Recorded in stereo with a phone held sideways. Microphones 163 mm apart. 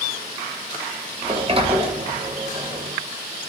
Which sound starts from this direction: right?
A sliding door, at 1.2 s.